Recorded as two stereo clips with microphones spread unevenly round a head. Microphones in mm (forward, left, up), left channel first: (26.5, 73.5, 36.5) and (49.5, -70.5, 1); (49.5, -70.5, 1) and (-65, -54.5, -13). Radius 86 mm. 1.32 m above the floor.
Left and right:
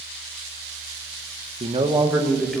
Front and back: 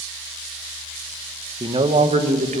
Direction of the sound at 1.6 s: 135° right.